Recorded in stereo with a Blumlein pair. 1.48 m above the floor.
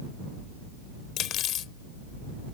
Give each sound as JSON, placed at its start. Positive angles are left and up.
{"t": 1.2, "sound": "cutlery clinking", "azimuth_deg": 30}